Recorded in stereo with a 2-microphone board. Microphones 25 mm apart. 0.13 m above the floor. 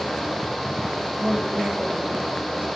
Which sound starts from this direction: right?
A woman speaking, at 1.2 s.